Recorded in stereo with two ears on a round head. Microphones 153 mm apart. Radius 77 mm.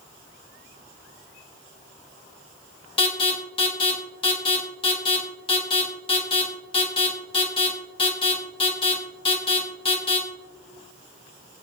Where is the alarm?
35° left (ahead or behind), 1.3 m.